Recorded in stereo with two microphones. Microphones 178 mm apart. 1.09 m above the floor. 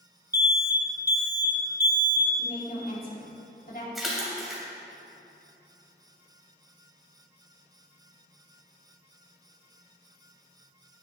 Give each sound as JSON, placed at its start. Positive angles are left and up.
{"t": 0.3, "sound": "an alarm", "side_deg": -10, "distance_m": 1.1}
{"t": 2.4, "sound": "a woman speaking", "side_deg": 50, "distance_m": 3.0}
{"t": 4.0, "sound": "a splash", "side_deg": 0, "distance_m": 2.5}